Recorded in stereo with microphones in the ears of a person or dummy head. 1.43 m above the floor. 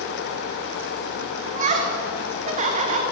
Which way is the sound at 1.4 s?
35° right (ahead or behind).